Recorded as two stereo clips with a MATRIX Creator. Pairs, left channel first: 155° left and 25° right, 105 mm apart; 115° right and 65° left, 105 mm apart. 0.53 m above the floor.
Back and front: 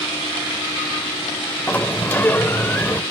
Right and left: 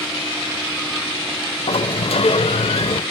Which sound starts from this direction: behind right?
A sliding door, at 1.7 s.